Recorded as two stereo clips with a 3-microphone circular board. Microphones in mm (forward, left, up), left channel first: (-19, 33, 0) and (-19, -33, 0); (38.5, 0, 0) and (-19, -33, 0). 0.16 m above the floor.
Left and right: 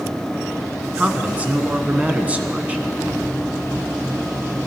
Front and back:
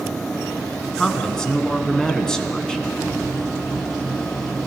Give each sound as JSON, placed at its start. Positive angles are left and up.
{"t": 0.9, "sound": "a man speaking", "azimuth_deg": -45, "distance_m": 1.3}